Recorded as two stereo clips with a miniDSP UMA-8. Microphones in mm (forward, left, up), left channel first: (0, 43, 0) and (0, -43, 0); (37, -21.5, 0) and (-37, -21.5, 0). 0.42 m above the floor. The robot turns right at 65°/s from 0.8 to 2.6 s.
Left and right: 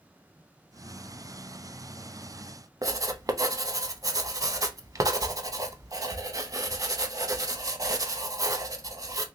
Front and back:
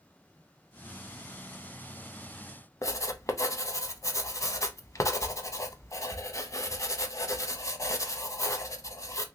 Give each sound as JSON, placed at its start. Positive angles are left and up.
{"t": 2.8, "sound": "writing", "azimuth_deg": -45, "distance_m": 0.5}